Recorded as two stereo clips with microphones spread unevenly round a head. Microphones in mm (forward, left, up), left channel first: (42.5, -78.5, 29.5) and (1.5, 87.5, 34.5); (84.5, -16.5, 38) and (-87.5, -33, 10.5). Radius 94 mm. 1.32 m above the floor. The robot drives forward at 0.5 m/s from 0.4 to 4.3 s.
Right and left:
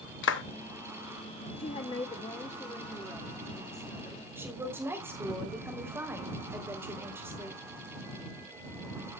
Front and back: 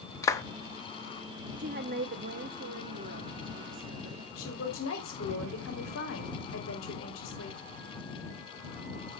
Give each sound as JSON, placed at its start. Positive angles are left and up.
{"t": 0.2, "sound": "a clap", "azimuth_deg": -70, "distance_m": 1.0}
{"t": 1.6, "sound": "a woman speaking", "azimuth_deg": -130, "distance_m": 0.7}
{"t": 4.4, "sound": "a woman speaking", "azimuth_deg": 25, "distance_m": 3.5}